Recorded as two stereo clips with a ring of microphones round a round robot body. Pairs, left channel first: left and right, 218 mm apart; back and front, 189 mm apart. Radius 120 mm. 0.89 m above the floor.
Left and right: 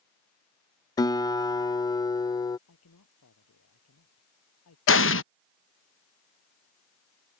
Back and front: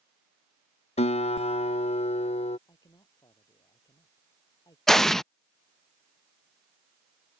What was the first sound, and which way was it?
A guitar, 150° left.